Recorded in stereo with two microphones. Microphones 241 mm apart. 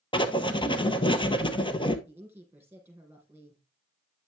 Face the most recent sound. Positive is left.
turn(degrees=-10)  # may be behind; listen again after turning